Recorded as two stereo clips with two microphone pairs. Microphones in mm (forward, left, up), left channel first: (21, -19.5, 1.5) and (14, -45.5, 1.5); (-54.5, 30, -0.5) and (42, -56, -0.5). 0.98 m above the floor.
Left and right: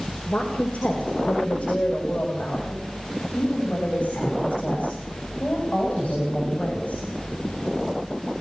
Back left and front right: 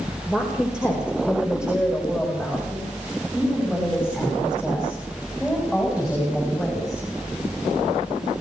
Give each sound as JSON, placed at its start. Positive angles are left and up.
{"t": 0.3, "sound": "a woman speaking", "azimuth_deg": 40, "distance_m": 4.5}